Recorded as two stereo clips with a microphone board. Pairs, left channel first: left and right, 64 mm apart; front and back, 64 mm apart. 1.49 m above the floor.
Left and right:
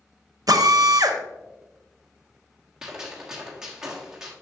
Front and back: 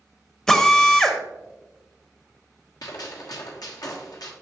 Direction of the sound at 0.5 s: 80° right.